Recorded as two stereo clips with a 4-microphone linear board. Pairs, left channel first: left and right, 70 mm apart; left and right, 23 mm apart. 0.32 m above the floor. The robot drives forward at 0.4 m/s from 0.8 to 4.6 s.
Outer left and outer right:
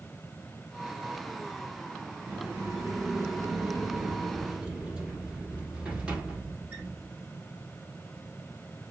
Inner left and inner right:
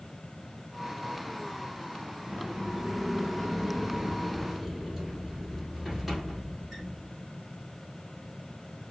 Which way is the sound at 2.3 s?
30° right (ahead or behind).